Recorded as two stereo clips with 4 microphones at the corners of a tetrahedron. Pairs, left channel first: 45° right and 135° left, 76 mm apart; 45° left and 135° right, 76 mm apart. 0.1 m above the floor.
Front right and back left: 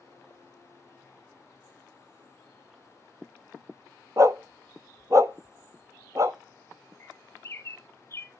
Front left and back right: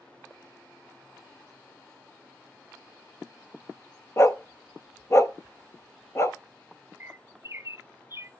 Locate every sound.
4.2 s a dog barking: 95° left, 0.5 m
7.0 s a bird: 85° right, 0.6 m